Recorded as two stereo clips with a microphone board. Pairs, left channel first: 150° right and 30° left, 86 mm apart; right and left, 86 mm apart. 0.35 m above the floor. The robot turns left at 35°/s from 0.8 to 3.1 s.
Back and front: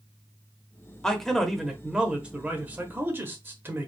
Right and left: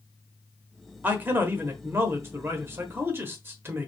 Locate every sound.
1.0 s a man speaking: 135° left, 1.0 m; by 3.9 s 65° left, 1.0 m